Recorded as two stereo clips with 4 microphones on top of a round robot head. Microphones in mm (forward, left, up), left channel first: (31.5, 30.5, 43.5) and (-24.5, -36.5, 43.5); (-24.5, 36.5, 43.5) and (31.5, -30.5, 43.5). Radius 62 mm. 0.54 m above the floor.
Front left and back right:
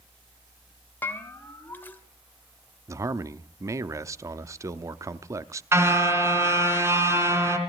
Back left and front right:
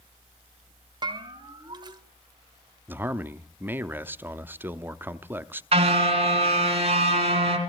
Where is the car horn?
65° right, 3 m.